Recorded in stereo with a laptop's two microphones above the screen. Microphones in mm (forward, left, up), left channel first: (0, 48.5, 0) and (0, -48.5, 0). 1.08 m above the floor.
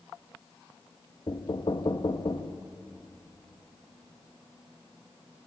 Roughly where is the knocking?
Left.